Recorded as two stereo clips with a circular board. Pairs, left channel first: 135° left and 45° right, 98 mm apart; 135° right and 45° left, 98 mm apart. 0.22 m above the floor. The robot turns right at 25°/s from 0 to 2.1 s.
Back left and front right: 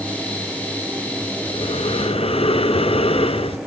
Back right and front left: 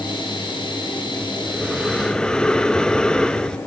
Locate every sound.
1.5 s breathing: 125° left, 0.6 m; by 3.6 s 145° left, 0.6 m